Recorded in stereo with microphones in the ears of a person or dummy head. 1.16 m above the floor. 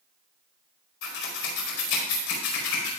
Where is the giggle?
No giggle in this recording.